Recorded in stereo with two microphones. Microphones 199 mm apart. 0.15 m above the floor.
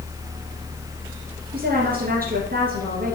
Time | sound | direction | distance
1.5 | a woman speaking | 50° right (ahead or behind) | 2 m